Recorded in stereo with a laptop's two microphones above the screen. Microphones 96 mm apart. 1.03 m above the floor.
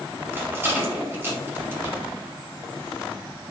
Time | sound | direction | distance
0.3 | a rattle | 25° right (ahead or behind) | 2.5 m